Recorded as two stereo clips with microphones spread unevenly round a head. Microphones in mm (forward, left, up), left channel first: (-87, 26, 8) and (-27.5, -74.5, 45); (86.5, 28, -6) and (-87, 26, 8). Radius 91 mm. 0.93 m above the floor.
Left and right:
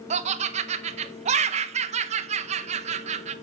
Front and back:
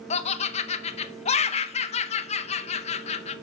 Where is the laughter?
30° right, 0.7 m.